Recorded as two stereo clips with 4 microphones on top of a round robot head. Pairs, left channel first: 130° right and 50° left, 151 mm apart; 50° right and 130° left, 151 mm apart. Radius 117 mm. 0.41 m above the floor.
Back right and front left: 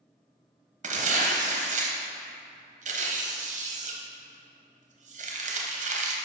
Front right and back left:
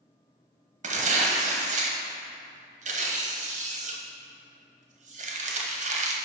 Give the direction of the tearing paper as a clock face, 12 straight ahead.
9 o'clock.